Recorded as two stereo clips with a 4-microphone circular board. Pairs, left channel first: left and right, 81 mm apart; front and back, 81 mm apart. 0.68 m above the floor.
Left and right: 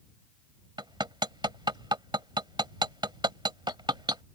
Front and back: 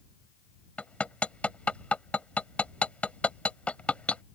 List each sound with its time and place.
0.8 s hammering: 75° right